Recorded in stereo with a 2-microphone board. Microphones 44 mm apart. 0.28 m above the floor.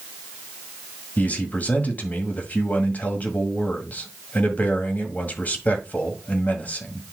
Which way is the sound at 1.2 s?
40° left (ahead or behind).